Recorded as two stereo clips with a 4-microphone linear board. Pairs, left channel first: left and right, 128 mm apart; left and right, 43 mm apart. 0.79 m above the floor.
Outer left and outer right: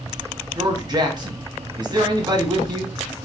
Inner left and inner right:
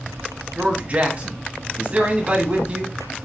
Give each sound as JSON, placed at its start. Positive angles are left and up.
{"t": 0.6, "sound": "a man speaking", "side_deg": -35, "distance_m": 1.2}